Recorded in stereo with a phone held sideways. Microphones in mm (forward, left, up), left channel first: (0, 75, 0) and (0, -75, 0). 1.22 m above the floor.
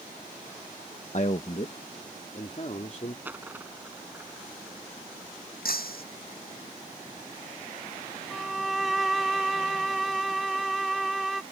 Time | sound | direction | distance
1.1 | a man speaking | 55° left (ahead or behind) | ?
3.2 | a dropped coin | 10° right (ahead or behind) | ?
5.7 | breaking glass | 85° left | ?
8.3 | a violin | centre (ahead or behind) | ?